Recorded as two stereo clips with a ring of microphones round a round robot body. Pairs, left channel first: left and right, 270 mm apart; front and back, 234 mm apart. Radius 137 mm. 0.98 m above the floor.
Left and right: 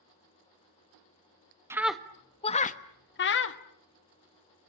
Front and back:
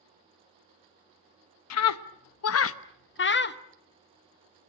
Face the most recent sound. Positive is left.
turn(degrees=45)